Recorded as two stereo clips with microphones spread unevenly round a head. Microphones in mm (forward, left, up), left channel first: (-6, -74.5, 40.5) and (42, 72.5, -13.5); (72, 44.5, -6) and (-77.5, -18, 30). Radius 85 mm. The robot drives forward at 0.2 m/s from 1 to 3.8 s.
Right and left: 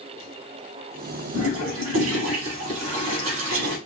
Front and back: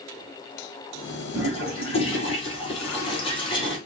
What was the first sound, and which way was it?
A toilet flushing, 80° left.